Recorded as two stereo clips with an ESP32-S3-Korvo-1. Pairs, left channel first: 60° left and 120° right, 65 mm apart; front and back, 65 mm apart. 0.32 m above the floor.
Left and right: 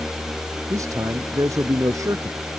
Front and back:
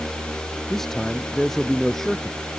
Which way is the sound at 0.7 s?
85° right.